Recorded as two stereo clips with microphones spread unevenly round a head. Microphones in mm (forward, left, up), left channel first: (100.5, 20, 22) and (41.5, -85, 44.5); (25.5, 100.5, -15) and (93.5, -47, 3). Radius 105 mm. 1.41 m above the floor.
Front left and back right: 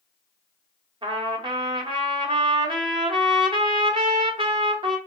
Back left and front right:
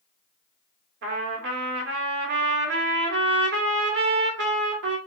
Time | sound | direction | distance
1.0 | a trumpet | 65° right | 0.8 m